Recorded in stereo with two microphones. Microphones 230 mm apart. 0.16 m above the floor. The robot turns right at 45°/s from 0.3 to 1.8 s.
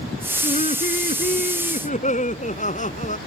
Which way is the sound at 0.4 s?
55° left.